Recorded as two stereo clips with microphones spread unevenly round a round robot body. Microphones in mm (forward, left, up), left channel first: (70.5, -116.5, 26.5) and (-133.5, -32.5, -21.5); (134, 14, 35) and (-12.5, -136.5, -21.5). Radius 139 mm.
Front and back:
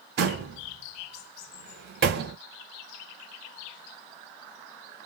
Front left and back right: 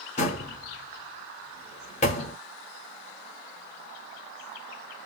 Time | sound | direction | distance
0.2 | a door slam | 115° left | 1.0 m